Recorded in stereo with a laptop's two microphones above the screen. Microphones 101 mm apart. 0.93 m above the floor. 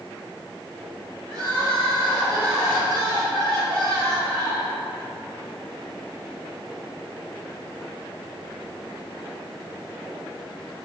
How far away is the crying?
About 1.4 m.